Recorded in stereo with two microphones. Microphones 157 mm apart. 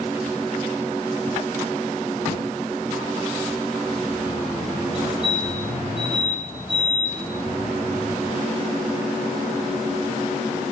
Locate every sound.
5.0 s a fire alarm: 40° right (ahead or behind), 6 m